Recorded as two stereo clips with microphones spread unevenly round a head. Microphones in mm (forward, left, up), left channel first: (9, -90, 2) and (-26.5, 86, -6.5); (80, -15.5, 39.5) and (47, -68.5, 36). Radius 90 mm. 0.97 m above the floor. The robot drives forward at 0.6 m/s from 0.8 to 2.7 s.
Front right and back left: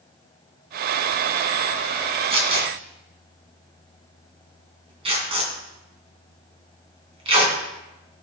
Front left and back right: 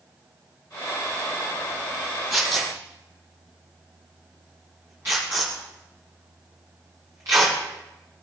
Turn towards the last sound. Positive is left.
turn(degrees=160)